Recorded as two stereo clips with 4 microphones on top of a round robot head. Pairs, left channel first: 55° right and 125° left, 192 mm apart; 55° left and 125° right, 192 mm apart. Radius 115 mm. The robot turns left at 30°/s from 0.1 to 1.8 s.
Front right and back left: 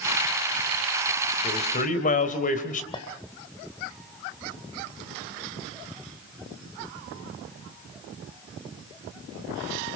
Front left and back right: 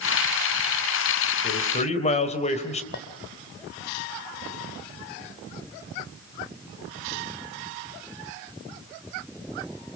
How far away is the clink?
About 2.5 m.